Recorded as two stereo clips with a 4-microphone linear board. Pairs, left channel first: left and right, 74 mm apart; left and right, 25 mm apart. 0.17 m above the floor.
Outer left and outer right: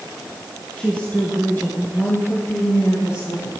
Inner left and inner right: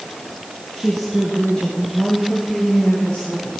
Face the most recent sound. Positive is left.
turn(degrees=40)  # may be behind; listen again after turning